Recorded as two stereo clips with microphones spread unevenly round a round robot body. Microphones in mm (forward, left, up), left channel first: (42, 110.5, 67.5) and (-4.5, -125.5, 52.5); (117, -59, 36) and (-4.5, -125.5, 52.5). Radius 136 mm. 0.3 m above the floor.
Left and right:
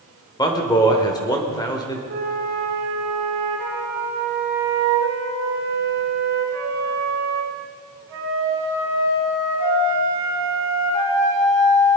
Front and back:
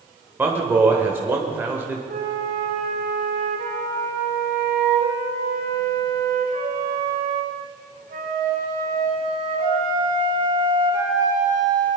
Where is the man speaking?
140° left, 1.4 m.